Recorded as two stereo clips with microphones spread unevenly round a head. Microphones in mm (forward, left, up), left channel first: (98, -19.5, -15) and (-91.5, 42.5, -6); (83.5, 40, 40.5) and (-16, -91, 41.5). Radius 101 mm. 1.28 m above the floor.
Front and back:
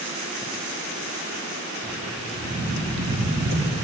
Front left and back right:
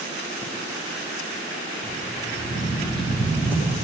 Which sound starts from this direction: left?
Footsteps, at 1.8 s.